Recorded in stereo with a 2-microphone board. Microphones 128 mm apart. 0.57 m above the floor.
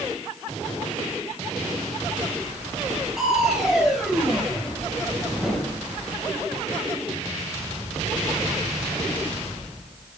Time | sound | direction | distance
3.2 | crushing | 5° right (ahead or behind) | 2.5 m